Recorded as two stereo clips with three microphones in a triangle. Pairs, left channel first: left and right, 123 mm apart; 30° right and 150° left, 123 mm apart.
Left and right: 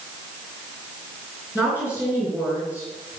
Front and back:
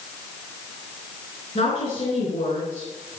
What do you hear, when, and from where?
1.6 s a woman speaking: 10° right, 4 m